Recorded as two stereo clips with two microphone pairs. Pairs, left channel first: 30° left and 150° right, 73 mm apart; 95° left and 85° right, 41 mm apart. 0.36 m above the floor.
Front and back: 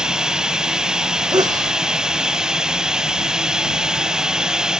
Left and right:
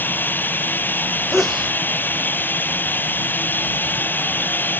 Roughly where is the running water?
Behind left.